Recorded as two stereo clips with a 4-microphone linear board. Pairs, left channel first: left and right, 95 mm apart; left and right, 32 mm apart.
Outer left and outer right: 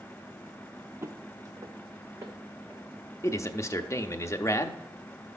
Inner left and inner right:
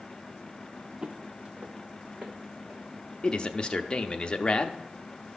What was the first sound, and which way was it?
Footsteps, 30° right (ahead or behind).